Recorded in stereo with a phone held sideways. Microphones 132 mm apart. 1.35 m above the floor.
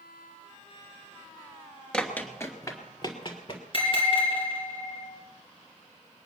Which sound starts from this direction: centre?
Running footsteps, at 1.9 s.